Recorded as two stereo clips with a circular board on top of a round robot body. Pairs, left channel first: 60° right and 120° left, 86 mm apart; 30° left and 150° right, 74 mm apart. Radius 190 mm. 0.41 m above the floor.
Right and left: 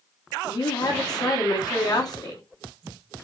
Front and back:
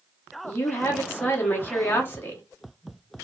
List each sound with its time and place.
0.4 s a woman speaking: 30° right, 1.3 m